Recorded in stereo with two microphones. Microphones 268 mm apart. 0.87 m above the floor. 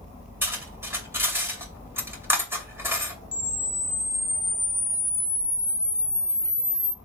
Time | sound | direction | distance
0.4 | cutlery clinking | 10° right (ahead or behind) | 2.5 m
3.3 | a camera shutter | 15° left (ahead or behind) | 0.9 m